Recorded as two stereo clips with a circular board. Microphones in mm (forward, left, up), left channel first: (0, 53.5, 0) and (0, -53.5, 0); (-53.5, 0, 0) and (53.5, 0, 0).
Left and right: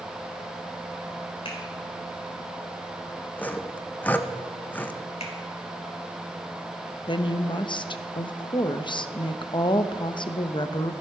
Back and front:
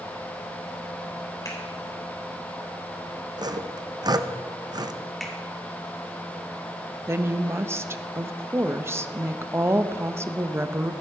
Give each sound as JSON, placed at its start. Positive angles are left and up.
{"t": 1.4, "sound": "a finger snap", "azimuth_deg": 120, "distance_m": 3.5}
{"t": 3.4, "sound": "sawing", "azimuth_deg": 25, "distance_m": 0.6}
{"t": 5.2, "sound": "a finger snap", "azimuth_deg": 90, "distance_m": 2.5}
{"t": 7.1, "sound": "a woman speaking", "azimuth_deg": 60, "distance_m": 0.7}